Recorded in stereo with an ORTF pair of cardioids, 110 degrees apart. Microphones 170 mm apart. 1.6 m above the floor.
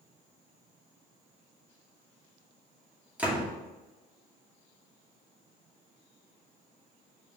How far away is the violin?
No violin in this recording.